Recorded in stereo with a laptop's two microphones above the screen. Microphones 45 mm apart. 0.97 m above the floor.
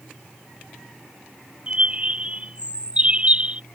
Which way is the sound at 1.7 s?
30° right (ahead or behind).